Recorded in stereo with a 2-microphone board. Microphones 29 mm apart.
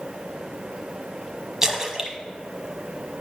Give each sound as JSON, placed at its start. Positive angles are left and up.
{"t": 1.6, "sound": "a splash", "side_deg": -20, "distance_m": 0.8}